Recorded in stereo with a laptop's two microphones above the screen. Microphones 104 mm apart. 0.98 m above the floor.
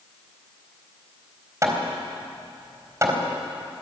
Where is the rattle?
No rattle in this recording.